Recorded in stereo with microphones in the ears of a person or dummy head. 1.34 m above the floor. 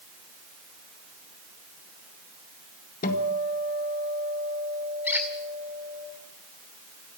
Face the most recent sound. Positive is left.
turn(degrees=-10)  # may be behind; listen again after turning